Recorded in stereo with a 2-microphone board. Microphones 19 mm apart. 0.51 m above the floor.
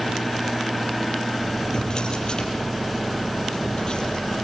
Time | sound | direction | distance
1.7 | a drawer | 45° left (ahead or behind) | 5.5 m